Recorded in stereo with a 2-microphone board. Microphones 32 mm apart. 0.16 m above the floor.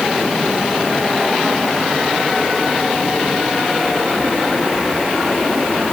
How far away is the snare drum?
I don't hear a snare drum.